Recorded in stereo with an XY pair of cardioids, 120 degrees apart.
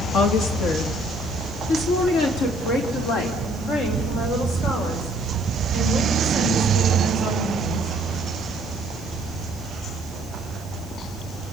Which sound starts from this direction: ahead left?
A woman speaking, at 0.1 s.